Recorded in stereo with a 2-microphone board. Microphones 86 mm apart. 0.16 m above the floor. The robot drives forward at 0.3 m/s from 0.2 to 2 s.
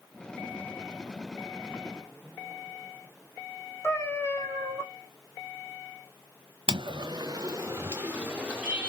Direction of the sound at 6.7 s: 75° right (ahead or behind).